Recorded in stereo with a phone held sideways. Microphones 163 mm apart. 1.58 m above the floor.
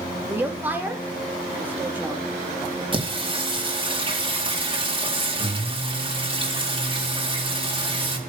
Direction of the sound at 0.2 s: 10° right (ahead or behind).